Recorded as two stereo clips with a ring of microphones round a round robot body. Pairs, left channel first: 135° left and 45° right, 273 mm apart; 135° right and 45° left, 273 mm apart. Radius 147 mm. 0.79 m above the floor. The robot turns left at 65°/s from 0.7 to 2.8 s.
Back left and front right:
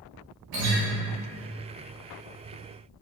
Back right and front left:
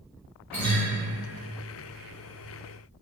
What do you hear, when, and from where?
0.5 s a guitar: 50° right, 0.8 m; by 0.8 s 60° right, 0.8 m